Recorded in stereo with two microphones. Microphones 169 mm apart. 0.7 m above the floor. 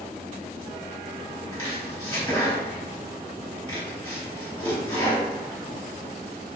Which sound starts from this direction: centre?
Chopping, at 1.5 s.